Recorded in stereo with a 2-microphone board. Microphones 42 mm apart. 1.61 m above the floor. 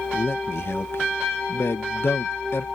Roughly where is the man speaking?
Left.